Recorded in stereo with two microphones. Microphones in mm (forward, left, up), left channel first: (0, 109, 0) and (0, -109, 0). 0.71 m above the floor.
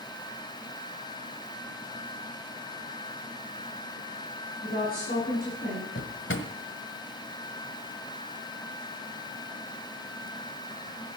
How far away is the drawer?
About 1.6 m.